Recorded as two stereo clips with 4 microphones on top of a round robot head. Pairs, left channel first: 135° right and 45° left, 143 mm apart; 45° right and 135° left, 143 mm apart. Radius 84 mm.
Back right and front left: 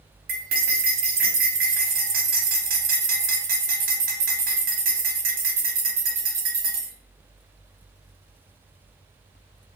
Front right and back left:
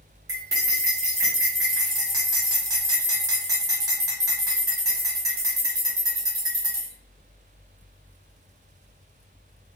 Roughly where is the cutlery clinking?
Ahead left.